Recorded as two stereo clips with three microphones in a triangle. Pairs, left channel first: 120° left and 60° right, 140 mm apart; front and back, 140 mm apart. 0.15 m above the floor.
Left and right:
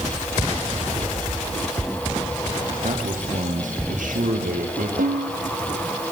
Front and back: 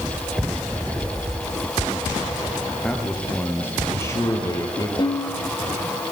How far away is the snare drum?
About 4.5 m.